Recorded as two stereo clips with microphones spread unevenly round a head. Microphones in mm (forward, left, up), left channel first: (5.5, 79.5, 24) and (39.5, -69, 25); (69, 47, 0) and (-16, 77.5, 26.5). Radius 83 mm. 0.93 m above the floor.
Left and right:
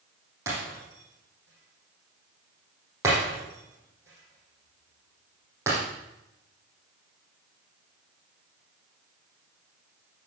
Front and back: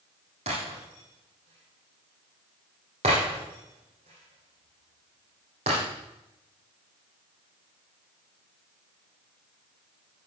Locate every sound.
0.5 s breaking glass: 150° right, 9.5 m